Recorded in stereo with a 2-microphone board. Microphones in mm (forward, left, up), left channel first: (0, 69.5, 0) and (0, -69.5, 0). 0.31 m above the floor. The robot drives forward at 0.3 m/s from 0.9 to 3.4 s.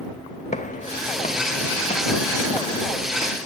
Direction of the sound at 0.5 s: 60° left (ahead or behind).